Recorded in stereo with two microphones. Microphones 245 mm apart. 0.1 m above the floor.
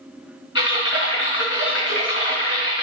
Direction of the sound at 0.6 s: 50° left (ahead or behind).